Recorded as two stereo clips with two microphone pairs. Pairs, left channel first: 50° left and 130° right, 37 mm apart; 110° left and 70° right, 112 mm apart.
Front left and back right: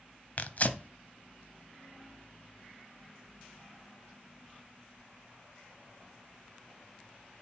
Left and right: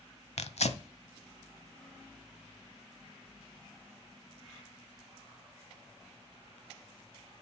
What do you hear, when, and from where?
0.4 s tearing paper: 95° left, 0.7 m